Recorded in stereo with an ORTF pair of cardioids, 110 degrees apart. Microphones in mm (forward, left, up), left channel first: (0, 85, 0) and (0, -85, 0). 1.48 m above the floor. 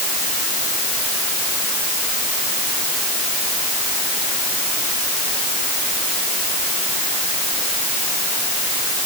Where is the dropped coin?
I don't hear a dropped coin.